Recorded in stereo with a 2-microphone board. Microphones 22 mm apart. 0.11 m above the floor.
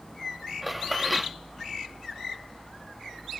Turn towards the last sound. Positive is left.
turn(degrees=-5)  # may be behind; listen again after turning